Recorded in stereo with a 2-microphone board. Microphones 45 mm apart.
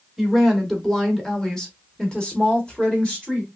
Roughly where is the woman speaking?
Centre.